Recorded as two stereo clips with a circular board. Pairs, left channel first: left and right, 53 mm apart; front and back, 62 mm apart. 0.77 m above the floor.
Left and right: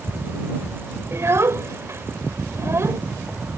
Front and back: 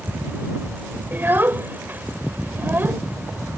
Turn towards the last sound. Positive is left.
turn(degrees=-125)